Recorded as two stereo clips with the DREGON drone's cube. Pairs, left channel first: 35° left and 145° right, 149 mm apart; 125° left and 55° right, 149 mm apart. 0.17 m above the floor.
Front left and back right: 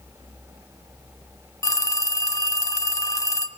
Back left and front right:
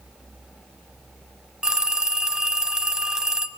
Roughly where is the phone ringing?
Ahead left.